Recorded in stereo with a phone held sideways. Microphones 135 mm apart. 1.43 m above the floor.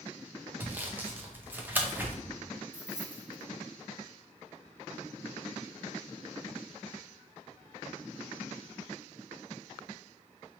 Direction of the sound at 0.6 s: 15° right (ahead or behind).